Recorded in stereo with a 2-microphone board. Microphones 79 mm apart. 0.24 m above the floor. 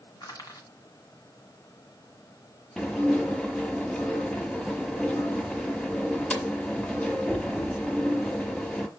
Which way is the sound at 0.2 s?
50° left (ahead or behind).